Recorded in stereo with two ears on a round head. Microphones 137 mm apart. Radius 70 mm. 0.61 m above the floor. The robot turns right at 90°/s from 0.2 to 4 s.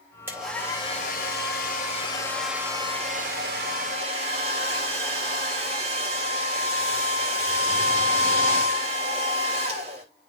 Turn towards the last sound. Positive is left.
turn(degrees=-40)